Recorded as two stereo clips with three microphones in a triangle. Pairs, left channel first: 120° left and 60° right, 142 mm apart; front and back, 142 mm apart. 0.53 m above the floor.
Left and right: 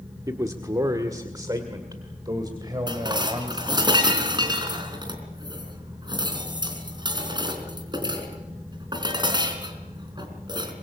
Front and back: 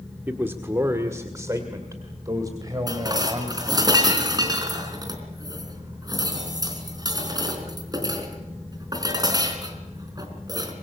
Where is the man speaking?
115° right, 1.3 m; by 3.9 s 120° right, 3.5 m.